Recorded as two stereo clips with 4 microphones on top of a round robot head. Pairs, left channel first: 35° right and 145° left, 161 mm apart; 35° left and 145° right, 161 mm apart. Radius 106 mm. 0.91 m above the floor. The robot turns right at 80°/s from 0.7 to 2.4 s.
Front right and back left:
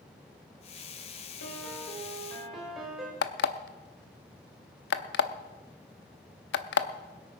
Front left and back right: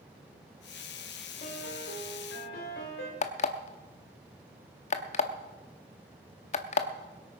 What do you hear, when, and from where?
1.4 s a piano: 25° right, 3 m; by 3.1 s 55° left, 3 m
3.2 s an alarm clock: 15° right, 0.7 m